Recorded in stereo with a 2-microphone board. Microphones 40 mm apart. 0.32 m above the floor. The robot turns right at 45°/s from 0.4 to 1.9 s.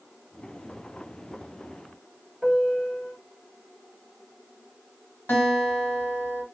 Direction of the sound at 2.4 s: 5° right (ahead or behind).